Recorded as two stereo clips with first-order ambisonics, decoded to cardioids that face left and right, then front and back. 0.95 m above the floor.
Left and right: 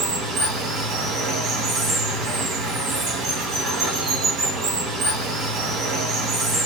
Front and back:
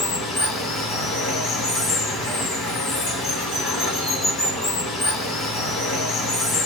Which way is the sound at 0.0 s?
50° right.